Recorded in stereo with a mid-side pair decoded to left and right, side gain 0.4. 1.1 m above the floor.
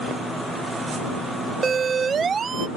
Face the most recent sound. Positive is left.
turn(degrees=-50)